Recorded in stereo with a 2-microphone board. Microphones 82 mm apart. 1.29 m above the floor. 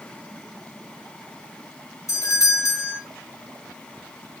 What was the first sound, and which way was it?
A doorbell, 45° left (ahead or behind).